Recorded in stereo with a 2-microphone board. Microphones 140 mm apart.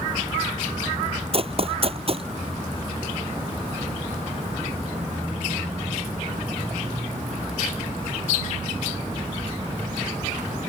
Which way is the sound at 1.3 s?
45° right (ahead or behind).